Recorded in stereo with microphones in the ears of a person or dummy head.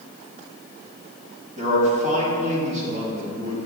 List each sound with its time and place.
1.6 s a man speaking: 45° right (ahead or behind), 3 m